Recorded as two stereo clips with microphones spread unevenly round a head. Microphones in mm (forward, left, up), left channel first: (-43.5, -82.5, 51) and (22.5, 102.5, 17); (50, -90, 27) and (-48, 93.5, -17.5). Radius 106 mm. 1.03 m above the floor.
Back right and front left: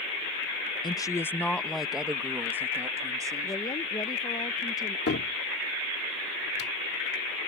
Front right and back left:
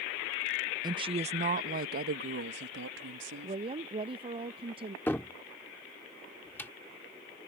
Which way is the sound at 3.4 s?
175° left.